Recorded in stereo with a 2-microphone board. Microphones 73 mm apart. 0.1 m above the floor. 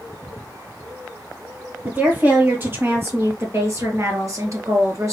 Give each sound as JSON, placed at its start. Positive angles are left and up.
{"t": 1.9, "sound": "a woman speaking", "side_deg": -20, "distance_m": 3.0}